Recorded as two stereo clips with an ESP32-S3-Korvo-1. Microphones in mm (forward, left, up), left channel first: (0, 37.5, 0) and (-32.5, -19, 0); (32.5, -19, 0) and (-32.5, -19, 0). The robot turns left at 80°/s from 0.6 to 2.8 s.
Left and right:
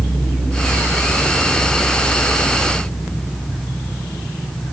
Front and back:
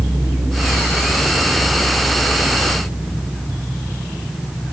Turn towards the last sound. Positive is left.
No sound to turn to.